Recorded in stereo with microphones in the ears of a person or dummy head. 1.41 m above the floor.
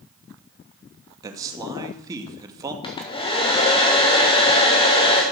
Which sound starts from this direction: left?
A hair dryer, at 2.8 s.